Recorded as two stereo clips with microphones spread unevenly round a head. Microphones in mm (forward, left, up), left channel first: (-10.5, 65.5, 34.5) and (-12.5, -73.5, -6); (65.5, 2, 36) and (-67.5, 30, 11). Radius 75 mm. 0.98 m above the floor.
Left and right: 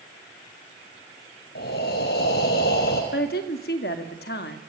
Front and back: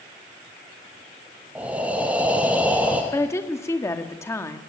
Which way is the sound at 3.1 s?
60° left.